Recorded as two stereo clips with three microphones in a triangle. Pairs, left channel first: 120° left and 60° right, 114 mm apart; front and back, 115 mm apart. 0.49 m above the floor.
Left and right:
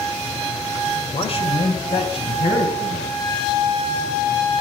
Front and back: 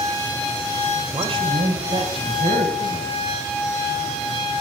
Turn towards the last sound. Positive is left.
turn(degrees=155)